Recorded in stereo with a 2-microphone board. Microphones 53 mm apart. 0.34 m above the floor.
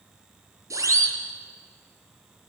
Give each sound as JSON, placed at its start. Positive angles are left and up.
{"t": 0.7, "sound": "a siren", "side_deg": -75, "distance_m": 7.0}